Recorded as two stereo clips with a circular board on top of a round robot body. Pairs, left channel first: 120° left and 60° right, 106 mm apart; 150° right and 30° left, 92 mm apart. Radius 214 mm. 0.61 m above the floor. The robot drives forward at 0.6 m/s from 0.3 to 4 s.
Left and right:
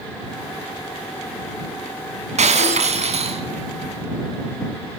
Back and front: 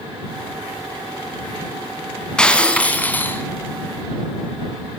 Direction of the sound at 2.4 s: 70° right.